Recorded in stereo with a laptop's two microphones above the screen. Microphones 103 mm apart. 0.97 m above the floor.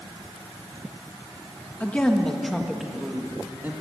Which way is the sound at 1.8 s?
15° left (ahead or behind).